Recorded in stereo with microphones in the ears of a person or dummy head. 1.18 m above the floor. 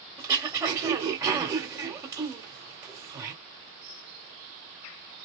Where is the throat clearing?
15° right (ahead or behind), 1.4 m.